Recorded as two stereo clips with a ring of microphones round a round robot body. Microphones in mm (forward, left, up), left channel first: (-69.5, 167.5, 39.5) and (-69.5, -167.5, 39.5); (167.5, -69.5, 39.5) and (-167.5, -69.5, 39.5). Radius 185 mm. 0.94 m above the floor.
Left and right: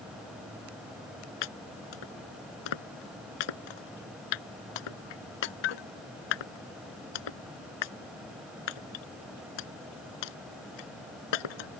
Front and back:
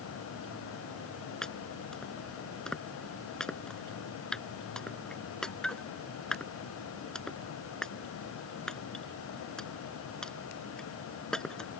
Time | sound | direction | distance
1.4 | chopping | 90° left | ?